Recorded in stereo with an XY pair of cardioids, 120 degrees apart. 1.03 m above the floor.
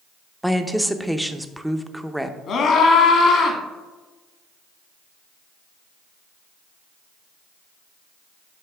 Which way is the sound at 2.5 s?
55° left.